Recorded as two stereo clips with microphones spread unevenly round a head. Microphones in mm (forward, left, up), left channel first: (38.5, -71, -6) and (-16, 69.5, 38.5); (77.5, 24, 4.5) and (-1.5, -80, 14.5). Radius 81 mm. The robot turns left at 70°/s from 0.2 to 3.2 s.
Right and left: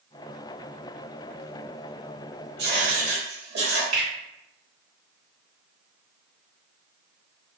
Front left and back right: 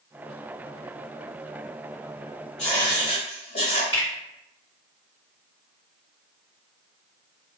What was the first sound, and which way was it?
Writing, 135° left.